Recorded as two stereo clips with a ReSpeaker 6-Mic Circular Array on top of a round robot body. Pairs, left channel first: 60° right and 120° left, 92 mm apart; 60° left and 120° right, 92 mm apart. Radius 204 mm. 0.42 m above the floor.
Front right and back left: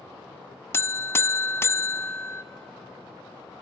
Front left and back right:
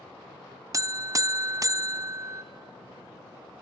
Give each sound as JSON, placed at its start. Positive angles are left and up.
{"t": 0.7, "sound": "a buzzer", "azimuth_deg": -105, "distance_m": 0.5}